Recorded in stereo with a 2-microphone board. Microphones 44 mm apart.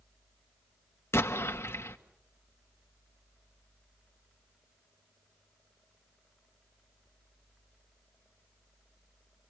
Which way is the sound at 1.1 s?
85° left.